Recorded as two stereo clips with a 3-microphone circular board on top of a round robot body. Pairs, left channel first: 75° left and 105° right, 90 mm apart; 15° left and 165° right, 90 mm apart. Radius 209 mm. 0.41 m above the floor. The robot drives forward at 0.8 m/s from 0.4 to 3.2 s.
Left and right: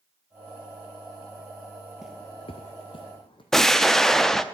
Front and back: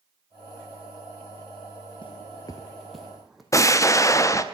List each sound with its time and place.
2.0 s footsteps: 20° right, 0.7 m; by 3.4 s 105° left, 1.6 m
3.5 s an explosion: 10° right, 1.0 m